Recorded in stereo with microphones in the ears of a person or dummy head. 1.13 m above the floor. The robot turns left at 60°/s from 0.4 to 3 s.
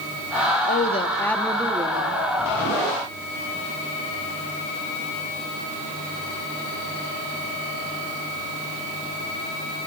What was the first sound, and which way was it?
A woman speaking, 50° left.